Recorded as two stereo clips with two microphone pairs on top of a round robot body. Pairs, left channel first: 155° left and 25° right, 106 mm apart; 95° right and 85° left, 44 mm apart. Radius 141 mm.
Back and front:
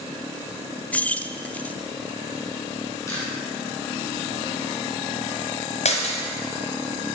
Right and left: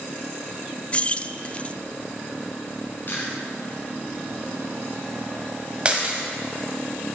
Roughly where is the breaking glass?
Behind left.